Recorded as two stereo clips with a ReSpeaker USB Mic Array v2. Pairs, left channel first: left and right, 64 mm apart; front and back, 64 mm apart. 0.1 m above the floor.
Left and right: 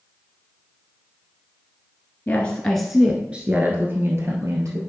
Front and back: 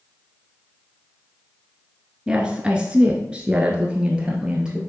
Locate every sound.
2.3 s a woman speaking: 120° left, 1.1 m; by 4.8 s 105° right, 1.8 m